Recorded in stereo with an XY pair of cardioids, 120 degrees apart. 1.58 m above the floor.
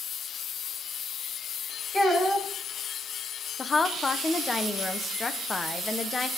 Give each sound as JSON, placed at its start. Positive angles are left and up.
{"t": 1.9, "sound": "a child speaking", "azimuth_deg": 15, "distance_m": 6.0}
{"t": 3.6, "sound": "a woman speaking", "azimuth_deg": 25, "distance_m": 1.3}